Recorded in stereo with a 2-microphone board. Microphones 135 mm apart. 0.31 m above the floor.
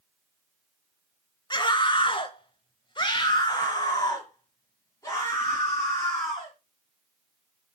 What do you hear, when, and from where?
1.5 s a scream: 35° left (ahead or behind), 1.0 m; by 6.5 s 20° left (ahead or behind), 3 m